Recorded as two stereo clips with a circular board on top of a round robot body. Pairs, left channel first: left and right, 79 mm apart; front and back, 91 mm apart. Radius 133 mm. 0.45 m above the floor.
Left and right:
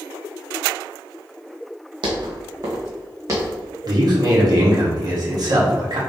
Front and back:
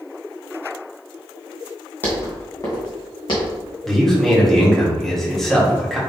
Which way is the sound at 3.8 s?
85° right.